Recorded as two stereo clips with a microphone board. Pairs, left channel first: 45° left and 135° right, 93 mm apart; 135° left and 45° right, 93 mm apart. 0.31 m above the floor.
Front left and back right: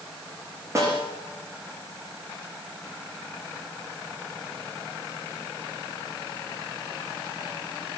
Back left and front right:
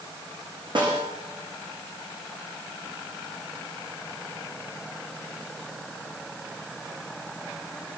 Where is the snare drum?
80° right, 9.5 m.